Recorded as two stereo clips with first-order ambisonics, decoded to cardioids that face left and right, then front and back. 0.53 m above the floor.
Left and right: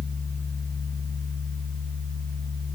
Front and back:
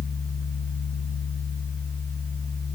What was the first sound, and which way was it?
Only background noise.